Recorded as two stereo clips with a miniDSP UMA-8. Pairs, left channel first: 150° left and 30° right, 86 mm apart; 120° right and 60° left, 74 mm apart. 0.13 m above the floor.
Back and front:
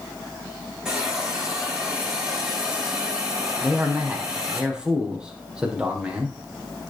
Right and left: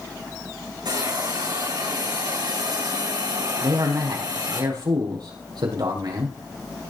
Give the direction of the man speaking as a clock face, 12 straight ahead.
10 o'clock.